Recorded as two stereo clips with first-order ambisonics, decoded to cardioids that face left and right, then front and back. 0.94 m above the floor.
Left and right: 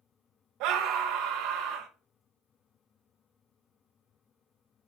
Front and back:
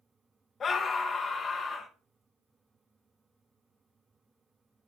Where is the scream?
65° right, 1.0 m.